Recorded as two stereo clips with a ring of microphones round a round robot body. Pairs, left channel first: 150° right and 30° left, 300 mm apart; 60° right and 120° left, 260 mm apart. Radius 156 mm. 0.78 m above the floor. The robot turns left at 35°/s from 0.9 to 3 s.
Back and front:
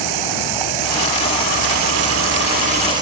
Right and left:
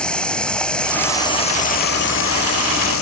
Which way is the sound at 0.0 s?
25° left.